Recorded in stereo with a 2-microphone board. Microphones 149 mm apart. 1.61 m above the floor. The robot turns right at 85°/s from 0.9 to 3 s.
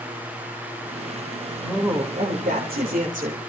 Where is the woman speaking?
Straight behind, 3 m; by 3.4 s 60° right, 3 m.